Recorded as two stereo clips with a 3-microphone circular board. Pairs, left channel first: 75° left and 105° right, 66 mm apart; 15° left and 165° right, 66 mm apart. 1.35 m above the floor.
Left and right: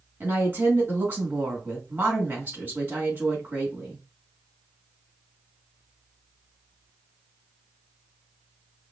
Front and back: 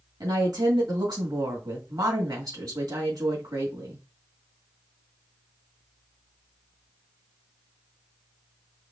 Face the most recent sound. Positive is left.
turn(degrees=-165)